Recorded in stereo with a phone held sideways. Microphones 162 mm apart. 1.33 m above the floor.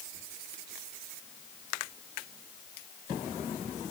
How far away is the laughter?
I don't hear laughter.